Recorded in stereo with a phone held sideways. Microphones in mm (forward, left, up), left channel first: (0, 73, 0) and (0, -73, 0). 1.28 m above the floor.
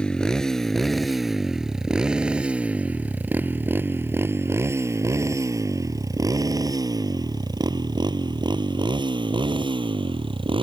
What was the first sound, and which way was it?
A motorcycle, 5° left (ahead or behind).